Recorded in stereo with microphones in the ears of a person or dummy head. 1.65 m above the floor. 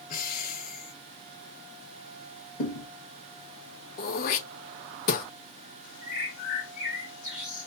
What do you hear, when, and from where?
0.1 s breathing: 50° left (ahead or behind), 1.1 m
2.6 s a thud: 40° left (ahead or behind), 3.5 m
4.0 s throat clearing: 55° left (ahead or behind), 1.0 m
6.0 s a bird: 45° left (ahead or behind), 3.5 m